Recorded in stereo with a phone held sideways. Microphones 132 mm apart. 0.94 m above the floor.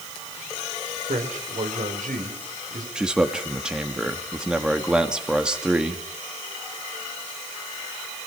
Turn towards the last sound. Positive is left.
turn(degrees=-5)  # may be behind; listen again after turning